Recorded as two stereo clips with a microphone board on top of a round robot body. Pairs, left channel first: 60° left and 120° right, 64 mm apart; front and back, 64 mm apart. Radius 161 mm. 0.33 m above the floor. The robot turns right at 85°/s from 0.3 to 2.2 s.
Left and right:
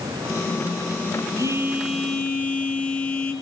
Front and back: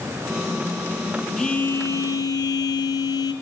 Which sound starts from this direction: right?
A phone buzzing, at 1.4 s.